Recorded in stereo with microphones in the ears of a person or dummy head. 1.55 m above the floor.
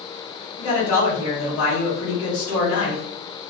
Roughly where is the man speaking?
Left.